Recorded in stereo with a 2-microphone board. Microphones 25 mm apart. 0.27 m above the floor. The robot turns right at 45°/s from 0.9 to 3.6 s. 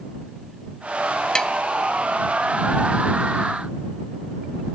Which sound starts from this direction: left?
Tapping, at 1.4 s.